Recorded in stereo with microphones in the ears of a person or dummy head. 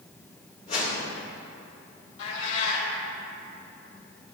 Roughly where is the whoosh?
Left.